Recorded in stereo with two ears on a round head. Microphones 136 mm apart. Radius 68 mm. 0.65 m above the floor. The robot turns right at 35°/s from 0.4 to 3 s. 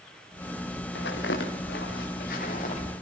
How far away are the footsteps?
About 6.5 m.